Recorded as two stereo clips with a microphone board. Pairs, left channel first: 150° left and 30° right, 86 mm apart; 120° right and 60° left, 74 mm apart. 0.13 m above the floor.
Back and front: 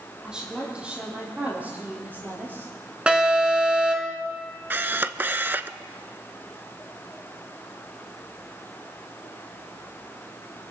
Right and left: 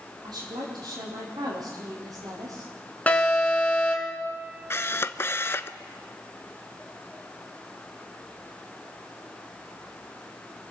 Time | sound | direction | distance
0.2 | a woman speaking | 50° left | 6 m
3.1 | an alarm | 90° right | 2 m
4.7 | a camera shutter | 85° right | 0.5 m